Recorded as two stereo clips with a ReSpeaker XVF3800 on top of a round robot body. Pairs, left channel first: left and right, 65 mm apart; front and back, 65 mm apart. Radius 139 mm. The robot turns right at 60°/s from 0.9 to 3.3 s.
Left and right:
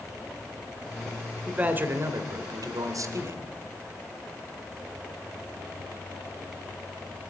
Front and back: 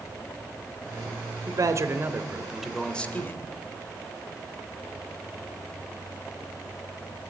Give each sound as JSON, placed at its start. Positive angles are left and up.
{"t": 1.5, "sound": "a man speaking", "azimuth_deg": -165, "distance_m": 2.0}